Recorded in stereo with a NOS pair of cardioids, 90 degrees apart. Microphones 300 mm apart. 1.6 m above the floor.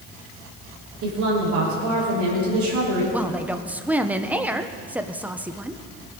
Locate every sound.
1.0 s a woman speaking: 65° right, 5 m
3.1 s a woman speaking: 5° right, 1.0 m